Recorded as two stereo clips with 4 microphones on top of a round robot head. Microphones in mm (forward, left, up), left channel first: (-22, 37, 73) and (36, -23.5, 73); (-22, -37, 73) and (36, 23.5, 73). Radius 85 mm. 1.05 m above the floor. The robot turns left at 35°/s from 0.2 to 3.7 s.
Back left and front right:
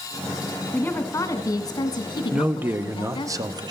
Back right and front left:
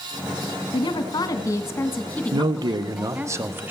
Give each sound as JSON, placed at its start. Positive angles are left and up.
{"t": 0.7, "sound": "a woman speaking", "azimuth_deg": -150, "distance_m": 1.7}
{"t": 2.3, "sound": "a man speaking", "azimuth_deg": 30, "distance_m": 0.8}